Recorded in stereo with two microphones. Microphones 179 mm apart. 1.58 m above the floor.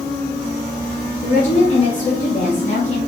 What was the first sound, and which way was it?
A woman speaking, 45° left (ahead or behind).